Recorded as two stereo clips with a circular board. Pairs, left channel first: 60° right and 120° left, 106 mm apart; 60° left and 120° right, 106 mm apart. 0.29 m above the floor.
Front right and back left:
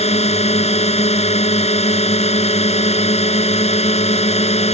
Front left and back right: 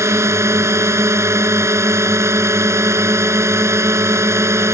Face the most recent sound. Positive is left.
turn(degrees=-55)